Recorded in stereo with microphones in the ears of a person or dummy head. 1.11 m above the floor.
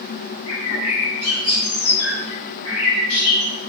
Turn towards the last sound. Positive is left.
turn(degrees=85)